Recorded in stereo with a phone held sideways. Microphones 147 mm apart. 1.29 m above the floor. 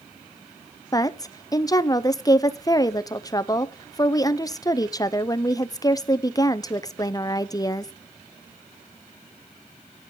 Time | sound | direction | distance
0.9 | a woman speaking | 25° left (ahead or behind) | 0.5 m